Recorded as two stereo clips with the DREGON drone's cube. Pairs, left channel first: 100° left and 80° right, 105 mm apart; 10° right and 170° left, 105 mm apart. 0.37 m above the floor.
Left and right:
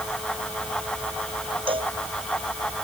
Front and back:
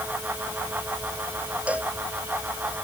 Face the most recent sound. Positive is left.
turn(degrees=-115)